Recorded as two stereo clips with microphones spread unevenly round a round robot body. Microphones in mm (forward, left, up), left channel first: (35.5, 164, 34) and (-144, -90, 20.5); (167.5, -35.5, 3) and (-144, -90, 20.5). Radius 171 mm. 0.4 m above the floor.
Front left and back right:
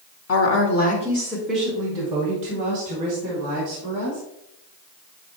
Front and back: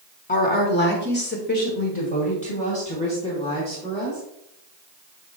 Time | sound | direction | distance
0.3 | a woman speaking | 60° left | 1.5 m